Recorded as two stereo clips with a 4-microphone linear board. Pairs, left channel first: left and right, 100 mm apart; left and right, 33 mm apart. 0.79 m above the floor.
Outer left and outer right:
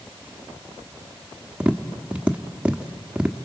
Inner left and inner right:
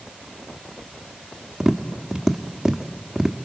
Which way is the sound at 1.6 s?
10° right (ahead or behind).